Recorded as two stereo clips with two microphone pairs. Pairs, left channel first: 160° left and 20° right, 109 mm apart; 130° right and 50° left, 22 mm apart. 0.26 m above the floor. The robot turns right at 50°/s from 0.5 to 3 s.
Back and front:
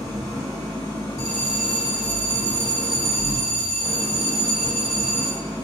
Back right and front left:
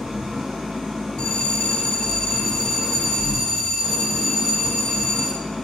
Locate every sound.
0.0 s an engine running: 75° left, 1.7 m; by 5.6 s 160° right, 1.7 m
1.2 s a bell: 140° right, 0.7 m; by 5.4 s 50° right, 0.7 m